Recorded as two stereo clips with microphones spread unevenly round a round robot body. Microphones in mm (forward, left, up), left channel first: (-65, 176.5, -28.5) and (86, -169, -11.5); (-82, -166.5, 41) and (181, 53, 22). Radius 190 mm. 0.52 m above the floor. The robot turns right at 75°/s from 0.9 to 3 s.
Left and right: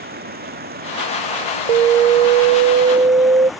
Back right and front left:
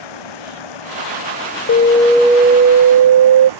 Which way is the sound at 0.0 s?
135° right.